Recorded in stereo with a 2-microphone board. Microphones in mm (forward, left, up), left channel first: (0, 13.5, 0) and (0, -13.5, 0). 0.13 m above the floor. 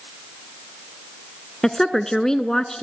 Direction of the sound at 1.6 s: 20° left (ahead or behind).